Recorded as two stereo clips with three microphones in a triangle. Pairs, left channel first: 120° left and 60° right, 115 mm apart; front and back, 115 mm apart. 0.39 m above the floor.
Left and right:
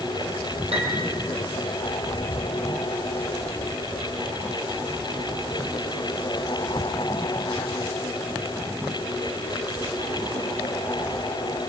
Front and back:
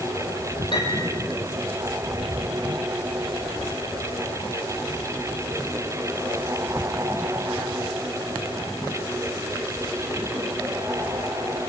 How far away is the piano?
About 5 m.